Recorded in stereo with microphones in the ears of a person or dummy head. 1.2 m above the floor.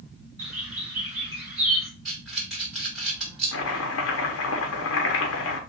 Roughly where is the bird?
Centre.